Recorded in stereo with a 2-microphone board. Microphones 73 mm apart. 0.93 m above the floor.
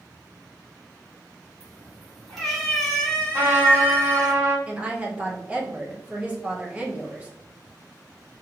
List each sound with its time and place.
1.6 s a cat meowing: centre (ahead or behind), 1.7 m; by 4.3 s 20° left (ahead or behind), 1.0 m
3.3 s a trumpet: 30° right (ahead or behind), 1.4 m
4.7 s a woman speaking: 15° right (ahead or behind), 0.7 m